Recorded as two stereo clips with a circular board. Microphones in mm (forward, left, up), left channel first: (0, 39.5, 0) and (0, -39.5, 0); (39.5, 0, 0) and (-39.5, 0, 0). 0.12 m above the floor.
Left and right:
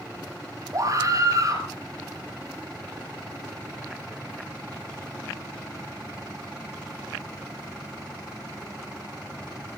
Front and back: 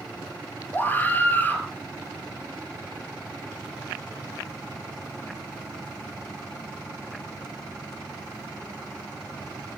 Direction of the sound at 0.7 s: 60° right.